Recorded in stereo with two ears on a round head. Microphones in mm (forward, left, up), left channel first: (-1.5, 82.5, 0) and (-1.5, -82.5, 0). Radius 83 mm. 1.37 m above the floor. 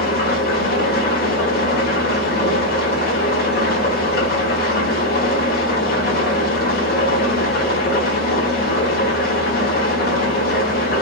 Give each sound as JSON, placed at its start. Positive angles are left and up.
{"t": 0.0, "sound": "an engine running", "side_deg": 50, "distance_m": 1.5}